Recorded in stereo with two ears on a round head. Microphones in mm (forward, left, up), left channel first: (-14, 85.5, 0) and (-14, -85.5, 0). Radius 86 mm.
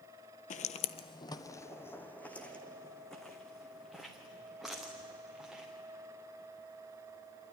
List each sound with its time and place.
0.5 s footsteps: 40° left (ahead or behind), 0.7 m; by 5.7 s 5° right (ahead or behind), 4 m